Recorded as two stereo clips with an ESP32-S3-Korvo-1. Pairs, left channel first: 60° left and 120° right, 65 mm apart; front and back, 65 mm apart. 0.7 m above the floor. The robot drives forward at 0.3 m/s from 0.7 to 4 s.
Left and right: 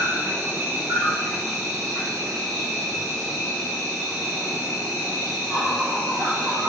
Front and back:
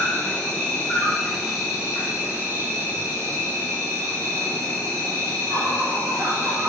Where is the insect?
70° right, 0.8 m; by 6.7 s 145° right, 1.1 m.